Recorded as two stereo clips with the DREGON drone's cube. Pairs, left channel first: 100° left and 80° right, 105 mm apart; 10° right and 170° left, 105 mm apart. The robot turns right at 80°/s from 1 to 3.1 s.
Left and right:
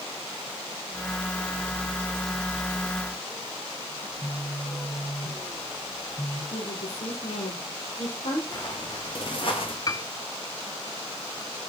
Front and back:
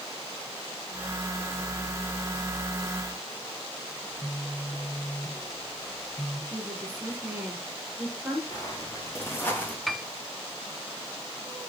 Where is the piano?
80° left, 0.7 m.